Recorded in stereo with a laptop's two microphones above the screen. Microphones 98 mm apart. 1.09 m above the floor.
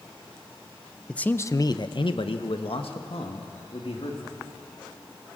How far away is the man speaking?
About 0.8 m.